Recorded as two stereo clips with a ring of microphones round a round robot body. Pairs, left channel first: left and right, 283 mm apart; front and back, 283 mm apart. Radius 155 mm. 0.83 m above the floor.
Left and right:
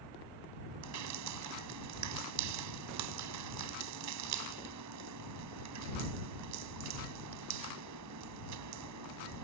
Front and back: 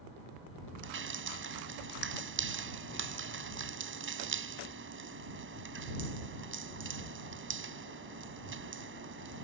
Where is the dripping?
130° right.